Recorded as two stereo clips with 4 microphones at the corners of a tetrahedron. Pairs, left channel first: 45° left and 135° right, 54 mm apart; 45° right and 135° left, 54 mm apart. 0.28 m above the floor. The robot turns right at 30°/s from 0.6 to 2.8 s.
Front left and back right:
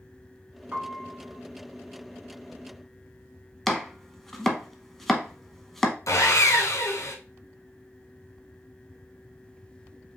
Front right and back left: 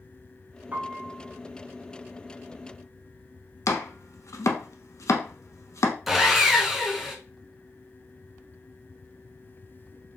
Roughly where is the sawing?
Ahead left.